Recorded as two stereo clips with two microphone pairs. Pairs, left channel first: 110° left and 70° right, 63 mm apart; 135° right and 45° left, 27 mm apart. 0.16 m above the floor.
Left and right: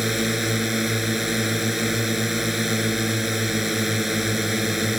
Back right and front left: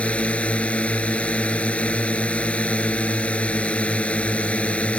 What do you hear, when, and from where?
0.0 s a drone: 155° right